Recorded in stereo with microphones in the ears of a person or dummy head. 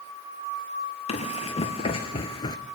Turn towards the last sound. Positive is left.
turn(degrees=25)  # may be behind; listen again after turning